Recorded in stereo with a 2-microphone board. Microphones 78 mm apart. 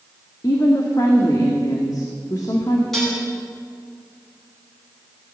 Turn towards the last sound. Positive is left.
turn(degrees=5)  # may be behind; listen again after turning